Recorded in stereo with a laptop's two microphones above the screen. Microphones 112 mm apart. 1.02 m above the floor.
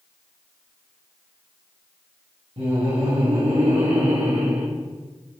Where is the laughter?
55° right (ahead or behind), 1.7 m; by 4.7 s 65° right (ahead or behind), 2 m.